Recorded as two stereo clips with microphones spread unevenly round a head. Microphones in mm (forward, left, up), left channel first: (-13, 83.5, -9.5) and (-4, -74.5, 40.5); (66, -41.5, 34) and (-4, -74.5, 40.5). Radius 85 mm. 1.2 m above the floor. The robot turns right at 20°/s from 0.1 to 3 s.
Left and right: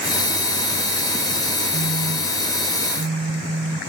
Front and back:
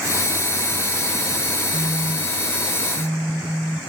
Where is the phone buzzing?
135° right, 7.5 m; by 3.8 s 110° right, 7.5 m.